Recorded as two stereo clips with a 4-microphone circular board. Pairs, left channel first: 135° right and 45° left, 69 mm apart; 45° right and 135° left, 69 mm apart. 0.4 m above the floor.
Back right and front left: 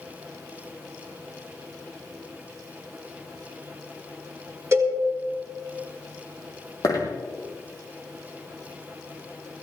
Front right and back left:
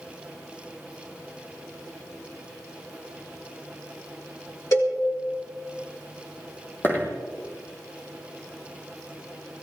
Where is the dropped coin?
100° right, 3 m.